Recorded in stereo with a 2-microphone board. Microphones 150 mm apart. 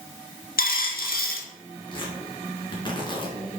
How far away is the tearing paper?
About 2.5 m.